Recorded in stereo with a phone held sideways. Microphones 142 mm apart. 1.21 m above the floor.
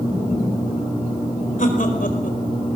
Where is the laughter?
70° left (ahead or behind), 4 m; by 2.8 s 85° left, 4.5 m.